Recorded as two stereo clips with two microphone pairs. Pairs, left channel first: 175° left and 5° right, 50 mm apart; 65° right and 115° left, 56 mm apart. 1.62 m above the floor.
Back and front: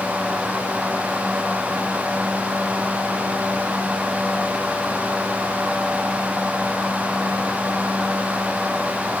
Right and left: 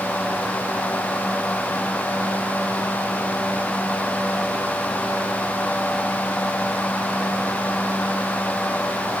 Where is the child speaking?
No child speaking in this recording.